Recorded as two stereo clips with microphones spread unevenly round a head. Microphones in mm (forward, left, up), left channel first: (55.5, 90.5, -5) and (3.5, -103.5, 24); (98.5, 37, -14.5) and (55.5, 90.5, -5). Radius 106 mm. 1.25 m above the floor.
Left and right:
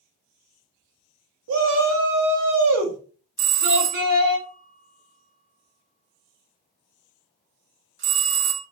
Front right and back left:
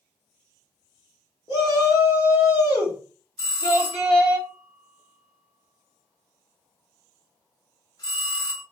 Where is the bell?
85° right, 0.9 m.